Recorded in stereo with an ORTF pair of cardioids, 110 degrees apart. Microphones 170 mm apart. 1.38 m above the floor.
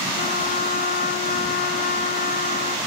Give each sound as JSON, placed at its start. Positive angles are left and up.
{"t": 0.2, "sound": "a trumpet", "azimuth_deg": 55, "distance_m": 1.4}